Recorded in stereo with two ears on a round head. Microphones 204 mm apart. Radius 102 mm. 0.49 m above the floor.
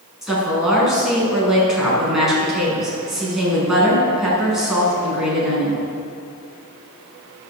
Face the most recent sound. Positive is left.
turn(degrees=0)  # may be behind; listen again after turning